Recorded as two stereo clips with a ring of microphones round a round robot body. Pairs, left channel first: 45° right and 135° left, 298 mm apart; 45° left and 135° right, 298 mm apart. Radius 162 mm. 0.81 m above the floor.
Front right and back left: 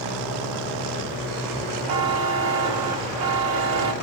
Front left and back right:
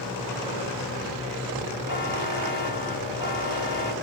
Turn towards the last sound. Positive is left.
turn(degrees=150)